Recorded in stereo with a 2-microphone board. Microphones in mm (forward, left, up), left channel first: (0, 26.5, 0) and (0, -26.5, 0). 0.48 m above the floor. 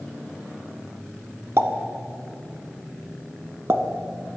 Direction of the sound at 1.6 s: 55° right (ahead or behind).